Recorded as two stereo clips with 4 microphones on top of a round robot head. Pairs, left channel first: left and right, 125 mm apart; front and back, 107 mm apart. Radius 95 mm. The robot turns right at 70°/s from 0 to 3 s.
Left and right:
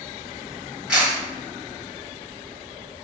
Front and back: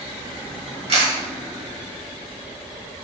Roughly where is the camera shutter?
Behind.